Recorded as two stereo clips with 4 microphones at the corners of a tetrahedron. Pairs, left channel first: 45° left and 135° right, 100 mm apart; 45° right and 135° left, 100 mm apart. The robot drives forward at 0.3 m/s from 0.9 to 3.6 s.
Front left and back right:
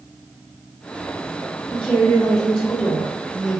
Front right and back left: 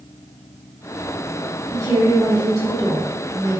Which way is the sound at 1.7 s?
115° left.